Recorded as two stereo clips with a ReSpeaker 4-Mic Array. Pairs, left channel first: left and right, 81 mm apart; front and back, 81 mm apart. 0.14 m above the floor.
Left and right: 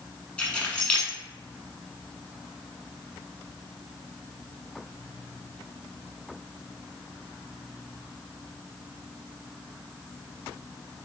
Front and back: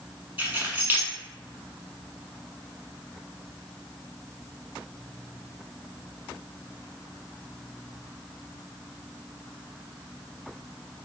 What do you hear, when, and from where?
0.4 s keys jangling: 145° left, 1.0 m